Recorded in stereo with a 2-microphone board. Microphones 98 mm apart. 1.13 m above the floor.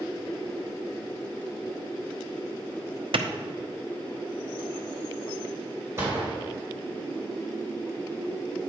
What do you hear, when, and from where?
3.1 s a clap: 60° right (ahead or behind), 0.7 m
6.0 s a gunshot: 25° right (ahead or behind), 3.5 m